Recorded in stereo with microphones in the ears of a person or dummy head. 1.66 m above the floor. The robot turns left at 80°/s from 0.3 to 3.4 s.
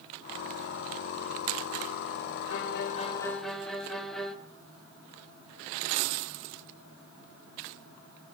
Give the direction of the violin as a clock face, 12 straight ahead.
10 o'clock.